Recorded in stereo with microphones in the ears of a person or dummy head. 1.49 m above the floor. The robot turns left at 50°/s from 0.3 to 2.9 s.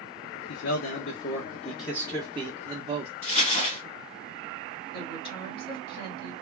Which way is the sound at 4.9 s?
30° left (ahead or behind).